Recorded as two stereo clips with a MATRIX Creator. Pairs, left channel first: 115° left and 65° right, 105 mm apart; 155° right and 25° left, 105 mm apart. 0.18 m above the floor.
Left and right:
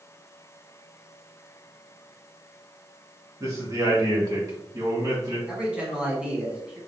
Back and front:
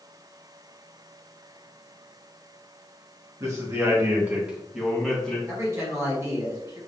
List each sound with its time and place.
3.4 s a man speaking: 20° right, 1.5 m; by 5.4 s 90° right, 1.2 m
5.5 s a man speaking: 5° left, 1.4 m